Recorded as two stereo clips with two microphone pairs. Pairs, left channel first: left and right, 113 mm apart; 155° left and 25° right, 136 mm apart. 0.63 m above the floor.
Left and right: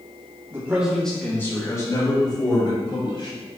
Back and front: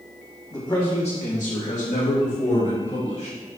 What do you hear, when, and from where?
0.5 s a man speaking: 150° right, 1.4 m; by 3.4 s 130° left, 4.5 m